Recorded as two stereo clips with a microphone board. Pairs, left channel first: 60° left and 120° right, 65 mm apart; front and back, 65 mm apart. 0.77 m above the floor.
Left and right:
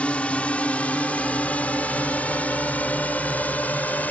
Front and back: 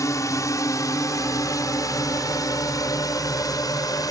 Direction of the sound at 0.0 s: 5° right.